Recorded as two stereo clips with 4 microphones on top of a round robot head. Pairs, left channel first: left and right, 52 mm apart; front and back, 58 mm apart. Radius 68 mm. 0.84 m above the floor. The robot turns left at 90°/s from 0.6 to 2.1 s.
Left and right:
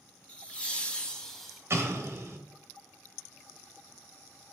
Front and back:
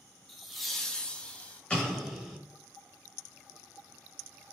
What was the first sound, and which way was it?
Laughter, 90° left.